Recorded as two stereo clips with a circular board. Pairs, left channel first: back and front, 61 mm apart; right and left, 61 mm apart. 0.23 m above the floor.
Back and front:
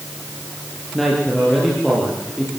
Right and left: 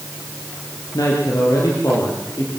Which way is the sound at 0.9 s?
95° right.